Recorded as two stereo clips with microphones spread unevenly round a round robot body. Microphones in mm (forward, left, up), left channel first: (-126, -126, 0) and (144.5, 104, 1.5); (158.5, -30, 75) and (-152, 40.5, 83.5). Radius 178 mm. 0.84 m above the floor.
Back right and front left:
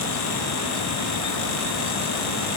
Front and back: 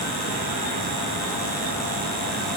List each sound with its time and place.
Only background noise.